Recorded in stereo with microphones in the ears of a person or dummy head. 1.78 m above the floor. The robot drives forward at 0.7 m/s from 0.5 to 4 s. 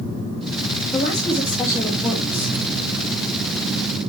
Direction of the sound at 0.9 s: 20° left (ahead or behind).